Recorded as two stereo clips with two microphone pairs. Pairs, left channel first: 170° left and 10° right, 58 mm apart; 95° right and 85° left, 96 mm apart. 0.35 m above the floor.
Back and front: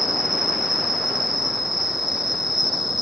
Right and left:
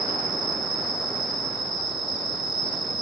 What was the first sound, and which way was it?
An insect, 95° right.